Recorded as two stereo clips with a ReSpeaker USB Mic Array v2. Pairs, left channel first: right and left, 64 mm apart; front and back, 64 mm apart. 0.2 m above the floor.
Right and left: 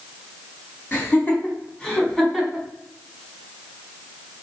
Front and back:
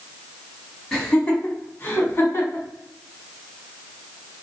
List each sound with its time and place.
0.9 s laughter: 70° right, 1.2 m; by 2.7 s 5° right, 1.5 m